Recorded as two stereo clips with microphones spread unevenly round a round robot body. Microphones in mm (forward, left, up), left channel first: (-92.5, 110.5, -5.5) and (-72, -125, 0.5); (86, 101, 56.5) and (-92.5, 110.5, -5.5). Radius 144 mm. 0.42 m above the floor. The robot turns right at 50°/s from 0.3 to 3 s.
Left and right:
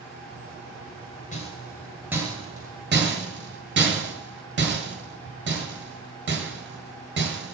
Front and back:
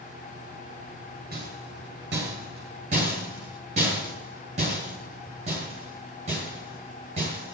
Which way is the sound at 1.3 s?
150° left.